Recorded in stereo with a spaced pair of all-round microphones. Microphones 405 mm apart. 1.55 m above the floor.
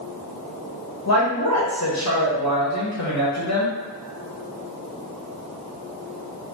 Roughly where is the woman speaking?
Left.